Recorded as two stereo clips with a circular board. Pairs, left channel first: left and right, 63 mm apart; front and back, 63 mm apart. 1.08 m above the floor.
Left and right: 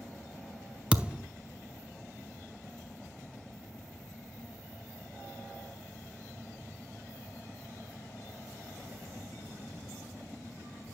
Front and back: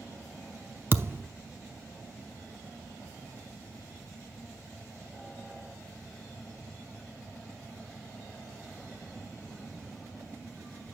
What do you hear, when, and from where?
0.9 s a thud: 155° right, 0.7 m